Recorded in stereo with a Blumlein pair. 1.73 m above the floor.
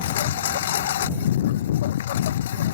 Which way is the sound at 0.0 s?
60° left.